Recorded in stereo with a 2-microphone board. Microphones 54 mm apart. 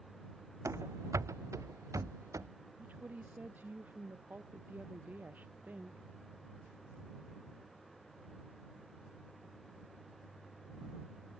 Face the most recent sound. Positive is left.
turn(degrees=-30)  # may be behind; listen again after turning